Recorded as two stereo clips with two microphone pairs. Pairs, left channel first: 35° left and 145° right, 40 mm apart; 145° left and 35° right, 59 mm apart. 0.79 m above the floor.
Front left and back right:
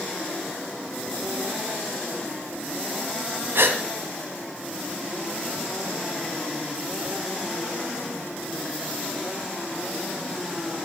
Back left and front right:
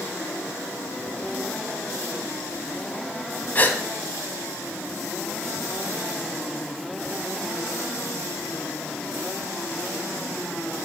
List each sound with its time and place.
3.5 s a gasp: 155° right, 1.9 m